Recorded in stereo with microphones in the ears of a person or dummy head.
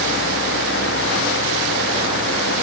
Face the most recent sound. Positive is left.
No sound to turn to.